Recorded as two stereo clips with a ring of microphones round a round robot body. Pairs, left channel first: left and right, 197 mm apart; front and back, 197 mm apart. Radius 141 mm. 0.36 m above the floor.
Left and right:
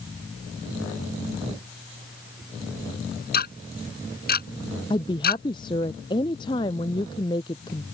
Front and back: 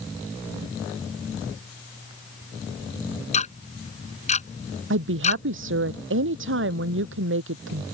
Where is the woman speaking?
165° left.